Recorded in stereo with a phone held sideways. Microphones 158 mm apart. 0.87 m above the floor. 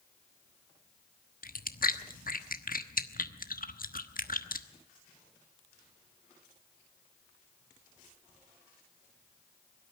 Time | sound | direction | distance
1.4 | chewing | 65° left (ahead or behind) | 1.2 m